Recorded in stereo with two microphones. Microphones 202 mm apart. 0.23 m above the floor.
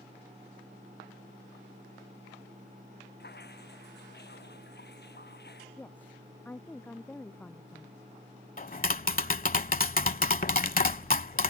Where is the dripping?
55° left (ahead or behind).